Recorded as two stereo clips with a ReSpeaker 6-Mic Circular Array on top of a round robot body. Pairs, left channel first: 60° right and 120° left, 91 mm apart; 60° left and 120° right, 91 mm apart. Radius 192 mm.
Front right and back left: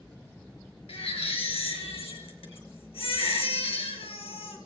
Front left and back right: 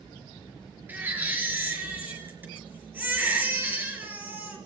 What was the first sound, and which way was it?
A baby crying, 50° right.